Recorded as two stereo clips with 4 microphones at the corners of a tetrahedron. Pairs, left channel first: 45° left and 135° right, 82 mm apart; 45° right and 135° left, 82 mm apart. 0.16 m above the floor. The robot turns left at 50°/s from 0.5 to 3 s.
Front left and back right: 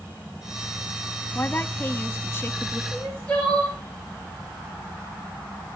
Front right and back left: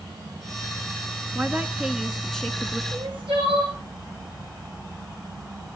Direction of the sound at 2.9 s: 125° left.